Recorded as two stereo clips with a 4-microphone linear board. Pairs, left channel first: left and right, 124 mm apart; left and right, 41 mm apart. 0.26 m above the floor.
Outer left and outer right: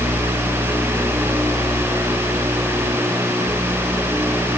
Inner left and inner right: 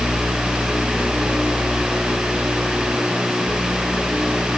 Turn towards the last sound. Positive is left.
No sound to turn to.